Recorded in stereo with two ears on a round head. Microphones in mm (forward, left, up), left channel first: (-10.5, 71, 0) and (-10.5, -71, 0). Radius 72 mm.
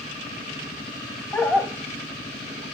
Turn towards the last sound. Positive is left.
turn(degrees=-40)  # may be behind; listen again after turning